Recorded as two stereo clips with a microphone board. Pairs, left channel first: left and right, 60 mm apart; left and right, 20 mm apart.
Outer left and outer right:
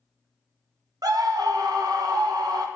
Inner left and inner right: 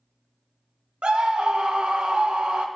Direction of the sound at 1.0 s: 80° right.